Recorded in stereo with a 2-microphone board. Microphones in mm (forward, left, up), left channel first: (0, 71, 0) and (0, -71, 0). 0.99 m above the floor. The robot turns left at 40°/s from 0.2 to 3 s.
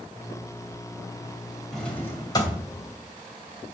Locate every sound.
1.7 s a drawer: straight behind, 2.5 m; by 2.6 s 145° left, 2.5 m